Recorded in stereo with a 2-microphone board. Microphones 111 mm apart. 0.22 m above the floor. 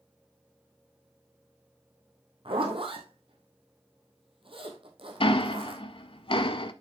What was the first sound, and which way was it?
A zipper, 55° right (ahead or behind).